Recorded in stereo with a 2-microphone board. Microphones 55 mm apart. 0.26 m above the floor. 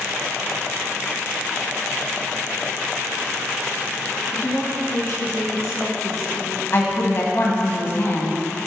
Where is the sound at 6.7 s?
45° left (ahead or behind), 1.8 m.